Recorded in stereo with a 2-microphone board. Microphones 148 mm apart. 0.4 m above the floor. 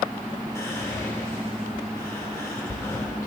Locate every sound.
0.6 s whispering: 20° left (ahead or behind), 1.0 m